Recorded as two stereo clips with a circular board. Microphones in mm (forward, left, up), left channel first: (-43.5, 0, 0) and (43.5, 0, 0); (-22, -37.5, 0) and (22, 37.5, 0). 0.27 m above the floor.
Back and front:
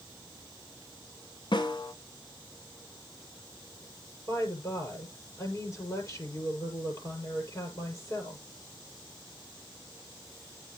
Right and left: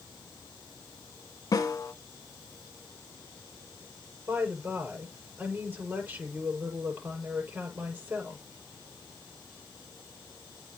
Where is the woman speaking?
130° left, 7.5 m.